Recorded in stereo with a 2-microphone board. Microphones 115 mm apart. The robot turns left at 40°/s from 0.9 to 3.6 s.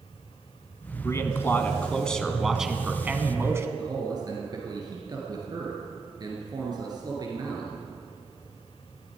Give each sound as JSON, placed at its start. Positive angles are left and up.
{"t": 1.0, "sound": "a man speaking", "azimuth_deg": 55, "distance_m": 1.3}
{"t": 3.8, "sound": "a man speaking", "side_deg": -35, "distance_m": 2.5}